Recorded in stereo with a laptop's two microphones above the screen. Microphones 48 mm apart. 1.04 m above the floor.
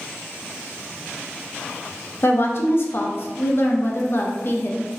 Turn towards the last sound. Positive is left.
turn(degrees=50)  # may be behind; listen again after turning